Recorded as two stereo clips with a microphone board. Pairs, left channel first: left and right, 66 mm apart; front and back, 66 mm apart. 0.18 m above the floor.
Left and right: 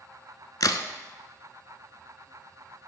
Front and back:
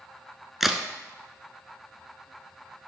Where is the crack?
95° left, 0.5 m.